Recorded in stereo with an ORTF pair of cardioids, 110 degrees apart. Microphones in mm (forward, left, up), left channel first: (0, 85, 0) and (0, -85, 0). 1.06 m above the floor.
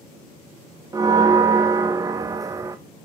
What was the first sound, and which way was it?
A bell, 20° right.